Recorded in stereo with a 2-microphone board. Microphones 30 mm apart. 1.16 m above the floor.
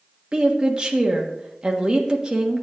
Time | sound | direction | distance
0.3 | a woman speaking | 30° right (ahead or behind) | 1.5 m